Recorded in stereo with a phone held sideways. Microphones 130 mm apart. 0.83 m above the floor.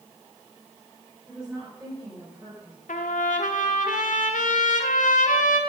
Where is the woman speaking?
Centre (ahead or behind), 4 m; by 2.8 s 25° right (ahead or behind), 4.5 m.